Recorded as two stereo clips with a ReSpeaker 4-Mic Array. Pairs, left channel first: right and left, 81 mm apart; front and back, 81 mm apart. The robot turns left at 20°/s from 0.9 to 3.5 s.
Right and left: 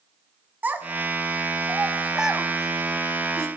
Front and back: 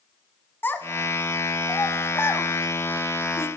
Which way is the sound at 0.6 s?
40° left.